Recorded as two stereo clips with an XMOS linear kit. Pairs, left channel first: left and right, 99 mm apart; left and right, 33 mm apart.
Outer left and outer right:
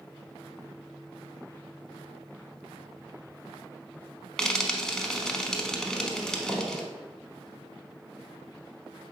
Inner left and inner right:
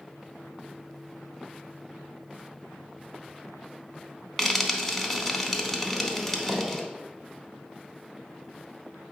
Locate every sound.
4.4 s frying: 5° left (ahead or behind), 0.7 m